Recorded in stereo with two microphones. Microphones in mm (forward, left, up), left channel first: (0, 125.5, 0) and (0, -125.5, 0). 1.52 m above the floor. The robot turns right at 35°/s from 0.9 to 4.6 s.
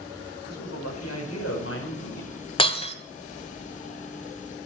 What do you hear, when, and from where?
0.5 s a man speaking: 95° left, 5 m; by 2.3 s 145° left, 5 m
2.6 s breaking glass: 20° left (ahead or behind), 1.4 m; by 3.0 s 25° left (ahead or behind), 1.4 m